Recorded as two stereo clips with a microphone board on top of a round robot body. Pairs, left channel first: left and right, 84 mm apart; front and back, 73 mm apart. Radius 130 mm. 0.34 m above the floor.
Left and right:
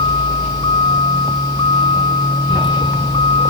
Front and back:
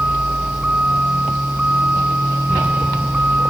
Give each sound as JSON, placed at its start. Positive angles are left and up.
{"t": 0.0, "sound": "a vehicle", "azimuth_deg": 105}